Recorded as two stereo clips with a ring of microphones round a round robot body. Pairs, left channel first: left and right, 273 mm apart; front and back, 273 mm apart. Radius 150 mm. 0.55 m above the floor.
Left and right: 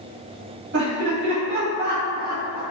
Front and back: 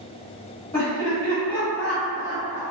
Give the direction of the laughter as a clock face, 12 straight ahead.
3 o'clock.